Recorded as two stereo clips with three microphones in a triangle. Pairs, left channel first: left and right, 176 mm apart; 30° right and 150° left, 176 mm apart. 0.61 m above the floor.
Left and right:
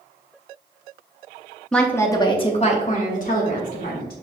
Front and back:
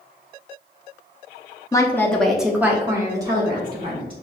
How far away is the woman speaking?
About 0.7 m.